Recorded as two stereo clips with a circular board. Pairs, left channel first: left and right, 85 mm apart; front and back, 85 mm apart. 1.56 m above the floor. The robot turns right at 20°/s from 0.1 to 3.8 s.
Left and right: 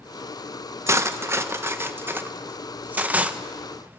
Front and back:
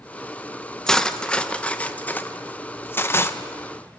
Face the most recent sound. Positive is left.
turn(degrees=-20)